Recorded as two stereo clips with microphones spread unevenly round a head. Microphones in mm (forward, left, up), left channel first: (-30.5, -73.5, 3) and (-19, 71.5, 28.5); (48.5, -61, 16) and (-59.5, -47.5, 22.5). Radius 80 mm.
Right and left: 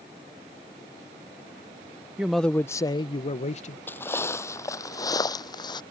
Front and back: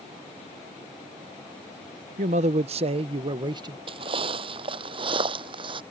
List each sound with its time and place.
2.2 s a man speaking: 165° left; by 3.8 s 135° right
3.9 s footsteps: straight behind; by 5.8 s 160° right